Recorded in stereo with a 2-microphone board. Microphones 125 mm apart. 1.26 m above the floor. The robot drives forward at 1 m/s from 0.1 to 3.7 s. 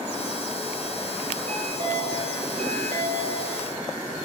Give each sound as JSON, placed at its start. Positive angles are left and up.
{"t": 1.5, "sound": "a chime", "side_deg": -75, "distance_m": 7.0}